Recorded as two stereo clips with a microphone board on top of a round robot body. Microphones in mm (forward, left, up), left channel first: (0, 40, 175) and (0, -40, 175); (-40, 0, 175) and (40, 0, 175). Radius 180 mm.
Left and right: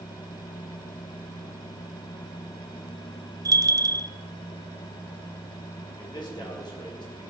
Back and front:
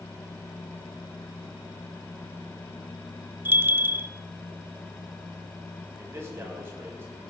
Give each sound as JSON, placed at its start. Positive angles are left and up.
{"t": 3.5, "sound": "a bell", "azimuth_deg": -60, "distance_m": 1.0}
{"t": 6.0, "sound": "a man speaking", "azimuth_deg": 60, "distance_m": 6.5}